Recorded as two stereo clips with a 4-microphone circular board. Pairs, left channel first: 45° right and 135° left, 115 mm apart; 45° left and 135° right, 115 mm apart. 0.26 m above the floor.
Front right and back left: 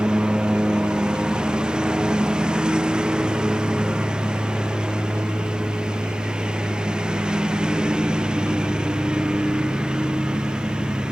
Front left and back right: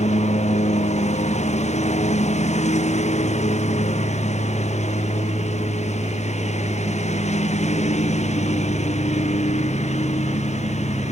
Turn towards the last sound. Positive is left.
turn(degrees=50)